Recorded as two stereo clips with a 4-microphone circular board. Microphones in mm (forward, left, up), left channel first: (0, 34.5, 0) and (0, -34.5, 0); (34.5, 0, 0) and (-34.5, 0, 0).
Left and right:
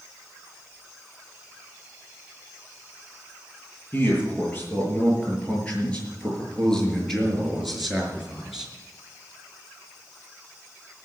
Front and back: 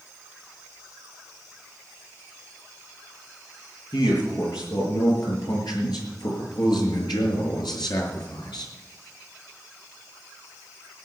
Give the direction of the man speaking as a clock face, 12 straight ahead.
11 o'clock.